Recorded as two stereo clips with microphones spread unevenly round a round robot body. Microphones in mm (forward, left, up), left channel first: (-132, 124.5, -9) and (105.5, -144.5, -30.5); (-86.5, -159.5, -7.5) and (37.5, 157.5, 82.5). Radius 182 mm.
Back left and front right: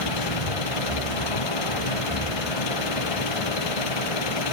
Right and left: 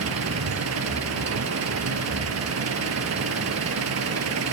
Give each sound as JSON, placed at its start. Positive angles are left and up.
{"t": 0.0, "sound": "an engine running", "azimuth_deg": 115}